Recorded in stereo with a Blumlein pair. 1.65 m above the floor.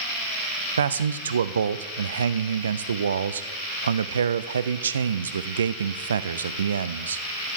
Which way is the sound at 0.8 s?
70° right.